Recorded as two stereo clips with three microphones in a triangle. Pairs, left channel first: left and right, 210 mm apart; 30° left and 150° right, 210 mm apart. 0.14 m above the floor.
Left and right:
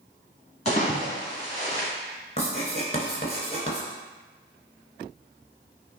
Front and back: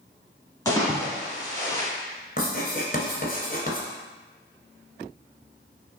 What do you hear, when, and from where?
0.7 s a splash: 90° left, 1.7 m
2.4 s writing: 45° left, 1.3 m